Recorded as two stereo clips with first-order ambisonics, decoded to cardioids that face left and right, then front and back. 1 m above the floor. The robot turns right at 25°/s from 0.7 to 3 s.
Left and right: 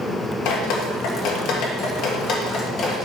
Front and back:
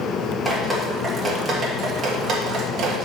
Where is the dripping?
90° left, 1.5 m; by 3.1 s 150° left, 1.5 m.